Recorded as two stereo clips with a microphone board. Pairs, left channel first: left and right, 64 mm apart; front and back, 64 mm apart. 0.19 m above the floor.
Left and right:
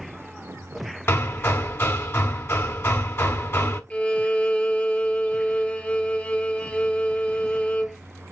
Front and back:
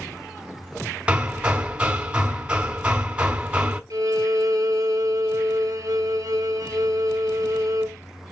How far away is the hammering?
About 1.0 m.